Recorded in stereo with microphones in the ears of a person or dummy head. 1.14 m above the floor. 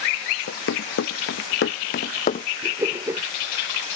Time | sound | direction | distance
0.5 | running footsteps | 70° left (ahead or behind) | ?
2.6 | a whoosh | 15° right (ahead or behind) | ?